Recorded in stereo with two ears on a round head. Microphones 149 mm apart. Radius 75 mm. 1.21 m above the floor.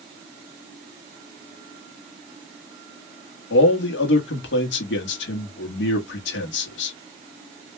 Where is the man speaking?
85° left, 1.6 m.